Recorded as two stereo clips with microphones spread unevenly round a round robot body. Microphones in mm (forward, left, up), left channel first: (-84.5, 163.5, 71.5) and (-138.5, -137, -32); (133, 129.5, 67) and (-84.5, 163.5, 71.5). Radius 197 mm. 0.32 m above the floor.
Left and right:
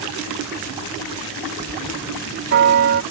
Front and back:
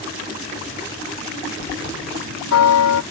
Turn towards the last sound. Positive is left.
turn(degrees=-35)